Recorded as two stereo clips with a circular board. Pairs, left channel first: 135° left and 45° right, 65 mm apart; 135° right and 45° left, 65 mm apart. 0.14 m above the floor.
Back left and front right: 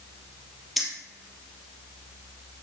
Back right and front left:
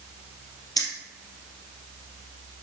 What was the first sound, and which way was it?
Keys jangling, 130° right.